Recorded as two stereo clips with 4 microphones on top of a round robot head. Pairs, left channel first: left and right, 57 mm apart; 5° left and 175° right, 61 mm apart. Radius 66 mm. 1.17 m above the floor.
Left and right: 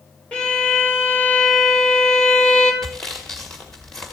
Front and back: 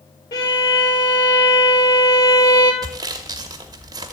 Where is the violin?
15° left, 1.8 m.